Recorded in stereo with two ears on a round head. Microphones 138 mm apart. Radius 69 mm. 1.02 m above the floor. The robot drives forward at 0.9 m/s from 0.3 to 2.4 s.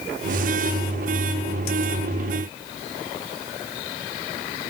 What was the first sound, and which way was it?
Only background noise.